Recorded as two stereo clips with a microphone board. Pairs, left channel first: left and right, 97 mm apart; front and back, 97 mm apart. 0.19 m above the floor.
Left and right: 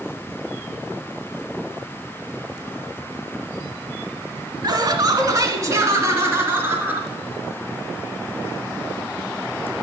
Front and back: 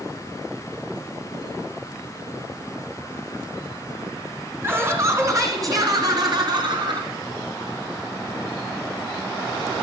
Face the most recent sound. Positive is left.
turn(degrees=-155)